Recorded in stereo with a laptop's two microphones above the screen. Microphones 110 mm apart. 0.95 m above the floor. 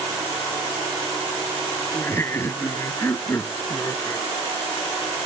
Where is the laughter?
20° left (ahead or behind).